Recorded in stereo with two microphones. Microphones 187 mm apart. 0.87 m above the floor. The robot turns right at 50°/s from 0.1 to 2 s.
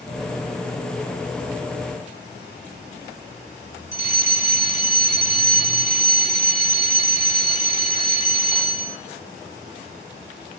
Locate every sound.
3.9 s a fire alarm: 40° left (ahead or behind), 2 m